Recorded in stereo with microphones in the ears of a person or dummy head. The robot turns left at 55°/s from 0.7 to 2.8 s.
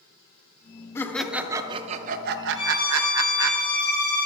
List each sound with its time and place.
0.9 s laughter: 15° left, 0.6 m; by 3.5 s 85° right, 0.6 m
2.5 s a violin: 35° left (ahead or behind), 3 m; by 4.3 s 45° left (ahead or behind), 3 m